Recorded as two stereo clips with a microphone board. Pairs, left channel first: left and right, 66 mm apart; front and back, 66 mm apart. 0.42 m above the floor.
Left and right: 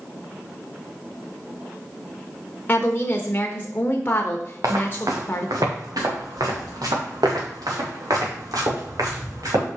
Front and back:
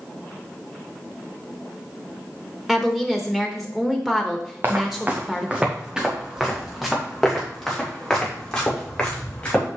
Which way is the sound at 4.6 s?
120° right.